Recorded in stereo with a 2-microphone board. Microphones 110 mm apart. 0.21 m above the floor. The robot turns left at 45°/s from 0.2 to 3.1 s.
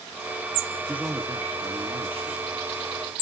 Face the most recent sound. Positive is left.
turn(degrees=-115)